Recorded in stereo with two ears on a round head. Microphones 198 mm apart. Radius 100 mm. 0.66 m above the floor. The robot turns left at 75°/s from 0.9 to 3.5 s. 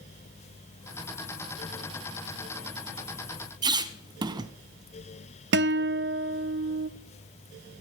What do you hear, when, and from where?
3.6 s a squeak: 20° right (ahead or behind), 0.5 m
5.5 s a guitar: 50° right (ahead or behind), 0.5 m